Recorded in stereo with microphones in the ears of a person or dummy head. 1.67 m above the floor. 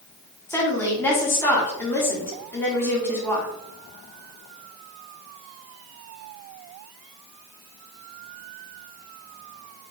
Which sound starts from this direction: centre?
A woman speaking, at 0.5 s.